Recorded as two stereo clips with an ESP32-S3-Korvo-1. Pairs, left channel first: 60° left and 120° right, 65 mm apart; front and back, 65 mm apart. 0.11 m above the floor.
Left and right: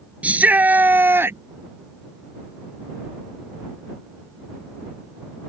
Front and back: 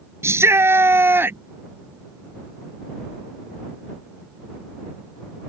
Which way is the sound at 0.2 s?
Straight behind.